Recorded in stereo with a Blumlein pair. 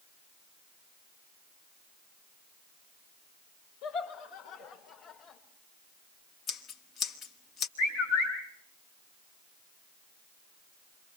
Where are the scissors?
30° left, 1.6 m.